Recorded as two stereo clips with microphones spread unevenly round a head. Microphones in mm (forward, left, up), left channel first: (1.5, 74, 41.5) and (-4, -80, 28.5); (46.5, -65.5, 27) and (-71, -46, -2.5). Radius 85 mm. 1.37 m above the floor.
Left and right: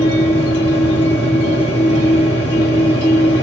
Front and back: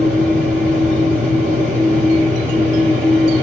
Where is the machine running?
65° left, 1.1 m.